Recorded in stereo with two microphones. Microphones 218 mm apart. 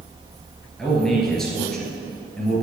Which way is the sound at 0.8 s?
Centre (ahead or behind).